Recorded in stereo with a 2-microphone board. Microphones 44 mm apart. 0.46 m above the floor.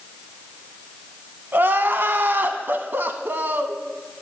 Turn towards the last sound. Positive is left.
turn(degrees=-55)  # may be behind; listen again after turning